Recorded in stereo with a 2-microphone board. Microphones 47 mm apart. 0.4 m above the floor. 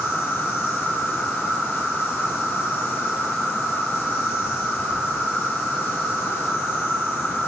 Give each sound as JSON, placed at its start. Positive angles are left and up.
{"t": 0.0, "sound": "an insect", "side_deg": 65, "distance_m": 5.5}